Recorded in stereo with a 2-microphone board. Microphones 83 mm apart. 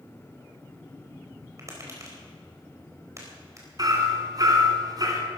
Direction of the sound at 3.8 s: 45° right (ahead or behind).